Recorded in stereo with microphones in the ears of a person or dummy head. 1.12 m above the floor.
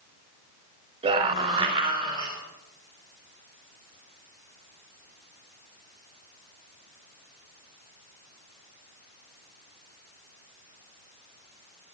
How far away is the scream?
About 4 m.